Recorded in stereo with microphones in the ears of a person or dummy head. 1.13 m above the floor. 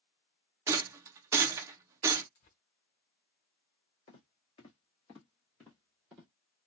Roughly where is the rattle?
Centre.